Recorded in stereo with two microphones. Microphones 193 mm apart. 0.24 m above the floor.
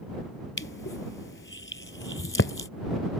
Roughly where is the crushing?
Left.